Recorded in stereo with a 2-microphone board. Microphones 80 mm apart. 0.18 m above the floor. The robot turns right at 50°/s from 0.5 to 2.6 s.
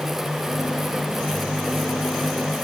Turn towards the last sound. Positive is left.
No sound to turn to.